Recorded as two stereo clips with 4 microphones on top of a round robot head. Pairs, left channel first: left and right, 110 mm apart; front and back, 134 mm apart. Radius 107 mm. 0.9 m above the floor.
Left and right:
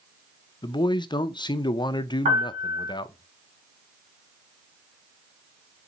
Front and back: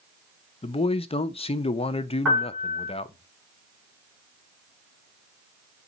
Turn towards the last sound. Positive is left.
turn(degrees=-90)